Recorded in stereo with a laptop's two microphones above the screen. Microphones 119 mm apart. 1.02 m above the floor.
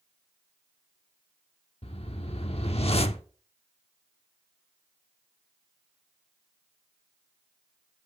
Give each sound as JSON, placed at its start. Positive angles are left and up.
{"t": 1.8, "sound": "a whoosh", "side_deg": 55, "distance_m": 0.9}